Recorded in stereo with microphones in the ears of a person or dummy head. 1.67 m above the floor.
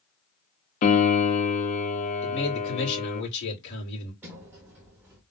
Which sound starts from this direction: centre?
A sliding door, at 4.2 s.